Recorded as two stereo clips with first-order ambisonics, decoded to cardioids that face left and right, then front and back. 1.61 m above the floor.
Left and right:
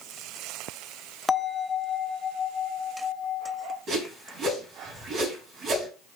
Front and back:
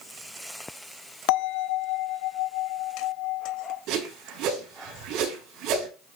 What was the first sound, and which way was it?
A bell, 10° left.